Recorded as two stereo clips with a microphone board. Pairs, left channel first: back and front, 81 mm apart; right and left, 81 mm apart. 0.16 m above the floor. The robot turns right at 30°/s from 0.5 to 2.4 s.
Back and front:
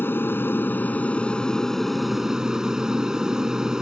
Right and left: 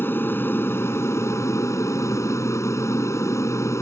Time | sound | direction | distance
0.0 | an aircraft | 135° right | ?